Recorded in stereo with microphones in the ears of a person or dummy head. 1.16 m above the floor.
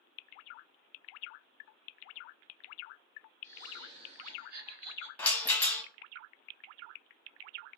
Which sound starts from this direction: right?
Laughter, at 3.4 s.